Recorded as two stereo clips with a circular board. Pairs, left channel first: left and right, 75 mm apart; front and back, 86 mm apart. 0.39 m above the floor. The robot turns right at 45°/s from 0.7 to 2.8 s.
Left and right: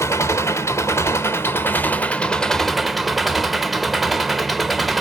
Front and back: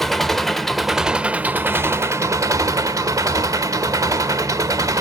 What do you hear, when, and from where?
0.0 s an engine running: 85° left, 0.8 m; by 5.0 s straight behind, 0.8 m